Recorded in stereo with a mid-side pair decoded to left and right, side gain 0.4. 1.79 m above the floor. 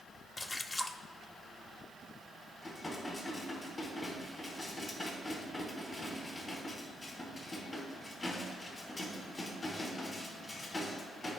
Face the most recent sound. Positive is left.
turn(degrees=35)